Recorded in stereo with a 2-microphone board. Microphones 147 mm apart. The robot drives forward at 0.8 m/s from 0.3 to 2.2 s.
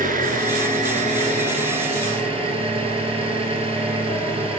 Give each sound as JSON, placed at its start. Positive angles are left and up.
{"t": 0.0, "sound": "an engine running", "side_deg": -70, "distance_m": 1.7}